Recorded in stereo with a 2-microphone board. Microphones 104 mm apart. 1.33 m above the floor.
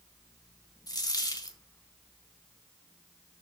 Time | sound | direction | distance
0.9 | a dropped coin | 40° left (ahead or behind) | 1.6 m